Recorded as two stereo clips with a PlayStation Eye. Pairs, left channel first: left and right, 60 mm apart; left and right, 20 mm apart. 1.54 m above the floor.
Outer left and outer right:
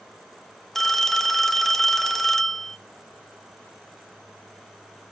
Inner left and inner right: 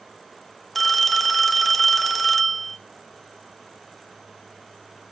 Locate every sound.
0.8 s a phone ringing: 5° left (ahead or behind), 1.0 m